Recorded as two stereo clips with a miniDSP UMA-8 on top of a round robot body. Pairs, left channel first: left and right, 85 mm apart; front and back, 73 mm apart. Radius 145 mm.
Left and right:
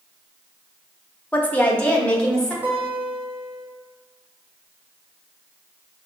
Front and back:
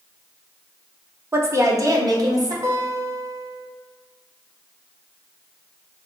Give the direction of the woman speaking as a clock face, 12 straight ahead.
7 o'clock.